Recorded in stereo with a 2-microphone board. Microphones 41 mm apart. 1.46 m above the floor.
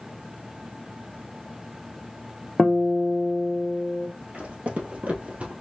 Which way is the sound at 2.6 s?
15° left (ahead or behind).